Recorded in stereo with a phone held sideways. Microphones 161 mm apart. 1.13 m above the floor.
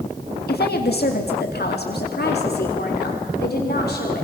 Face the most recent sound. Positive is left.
turn(degrees=85)